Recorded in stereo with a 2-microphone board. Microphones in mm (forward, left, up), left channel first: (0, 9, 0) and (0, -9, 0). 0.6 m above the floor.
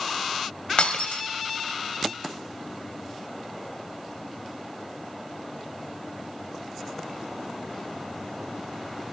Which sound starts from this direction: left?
Breaking glass, at 0.8 s.